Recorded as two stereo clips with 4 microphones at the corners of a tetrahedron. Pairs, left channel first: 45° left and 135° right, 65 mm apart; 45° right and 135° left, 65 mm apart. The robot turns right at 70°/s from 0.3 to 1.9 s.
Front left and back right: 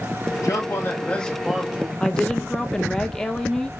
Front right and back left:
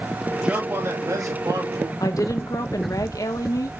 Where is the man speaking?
60° left, 3 m; by 1.9 s 165° left, 3 m.